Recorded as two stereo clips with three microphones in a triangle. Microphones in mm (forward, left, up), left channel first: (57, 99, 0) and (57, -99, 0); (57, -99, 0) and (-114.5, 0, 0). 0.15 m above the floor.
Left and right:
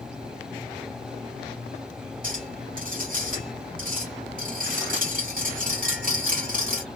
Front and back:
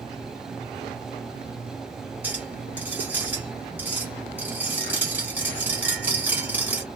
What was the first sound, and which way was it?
A clink, 130° right.